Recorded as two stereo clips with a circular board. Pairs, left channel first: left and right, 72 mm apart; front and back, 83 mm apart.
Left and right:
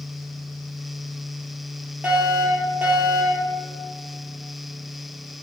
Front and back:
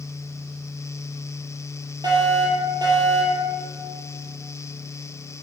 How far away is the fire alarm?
About 5 m.